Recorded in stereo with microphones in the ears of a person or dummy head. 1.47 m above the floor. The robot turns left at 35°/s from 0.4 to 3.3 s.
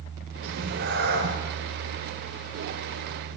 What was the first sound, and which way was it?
A cat meowing, 105° right.